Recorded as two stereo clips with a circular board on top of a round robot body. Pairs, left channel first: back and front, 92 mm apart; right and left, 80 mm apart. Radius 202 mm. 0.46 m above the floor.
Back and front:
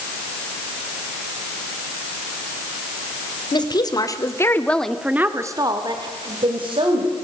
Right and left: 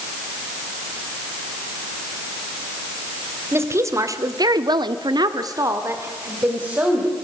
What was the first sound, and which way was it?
A woman speaking, 145° left.